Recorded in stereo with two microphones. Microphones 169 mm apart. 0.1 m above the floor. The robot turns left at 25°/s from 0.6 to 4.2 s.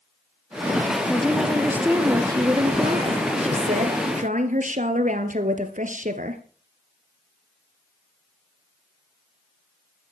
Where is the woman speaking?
5° left, 2 m; by 6.4 s 75° right, 2 m.